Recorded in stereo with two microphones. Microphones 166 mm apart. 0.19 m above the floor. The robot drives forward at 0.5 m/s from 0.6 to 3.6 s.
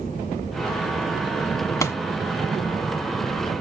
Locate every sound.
1.8 s a pop: 20° left (ahead or behind), 0.9 m; by 2.0 s 15° left (ahead or behind), 1.0 m